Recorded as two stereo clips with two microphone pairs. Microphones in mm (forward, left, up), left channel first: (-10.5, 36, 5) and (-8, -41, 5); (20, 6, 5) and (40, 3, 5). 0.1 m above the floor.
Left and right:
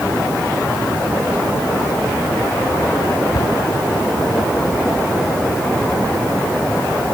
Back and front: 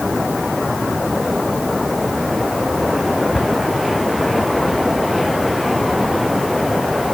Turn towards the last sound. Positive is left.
turn(degrees=120)